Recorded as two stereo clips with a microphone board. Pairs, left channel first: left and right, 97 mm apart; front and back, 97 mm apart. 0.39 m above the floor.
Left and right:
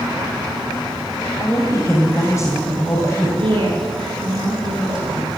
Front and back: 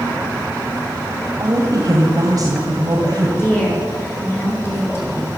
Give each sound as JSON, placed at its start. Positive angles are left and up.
{"t": 1.4, "sound": "a woman speaking", "azimuth_deg": 140, "distance_m": 2.5}
{"t": 3.4, "sound": "a woman speaking", "azimuth_deg": -65, "distance_m": 7.0}